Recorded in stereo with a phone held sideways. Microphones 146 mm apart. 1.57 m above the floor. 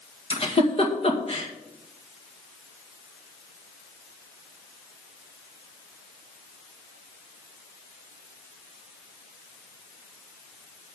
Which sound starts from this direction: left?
A giggle, at 0.3 s.